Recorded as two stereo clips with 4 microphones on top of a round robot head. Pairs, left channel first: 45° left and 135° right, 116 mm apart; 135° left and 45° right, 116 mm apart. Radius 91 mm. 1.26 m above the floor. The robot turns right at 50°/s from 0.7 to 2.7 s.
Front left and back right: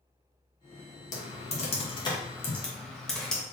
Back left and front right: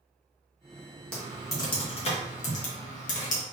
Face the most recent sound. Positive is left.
turn(degrees=130)